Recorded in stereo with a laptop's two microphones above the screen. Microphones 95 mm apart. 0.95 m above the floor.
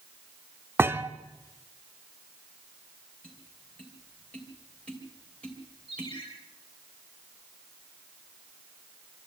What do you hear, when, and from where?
0.8 s a thud: 25° right (ahead or behind), 0.7 m
3.2 s tapping: 10° left (ahead or behind), 3 m
5.9 s a ringtone: 60° left (ahead or behind), 10 m